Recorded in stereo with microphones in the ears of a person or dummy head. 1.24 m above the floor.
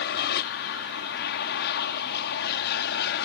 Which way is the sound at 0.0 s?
55° left (ahead or behind).